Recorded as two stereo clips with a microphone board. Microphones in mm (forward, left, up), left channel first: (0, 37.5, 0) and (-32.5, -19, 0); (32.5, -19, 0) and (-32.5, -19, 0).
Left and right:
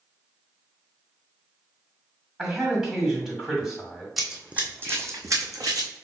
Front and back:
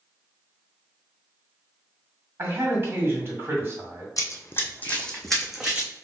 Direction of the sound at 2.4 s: 160° left.